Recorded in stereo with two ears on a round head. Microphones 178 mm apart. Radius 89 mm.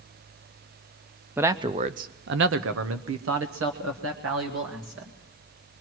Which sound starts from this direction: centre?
A man speaking, at 1.4 s.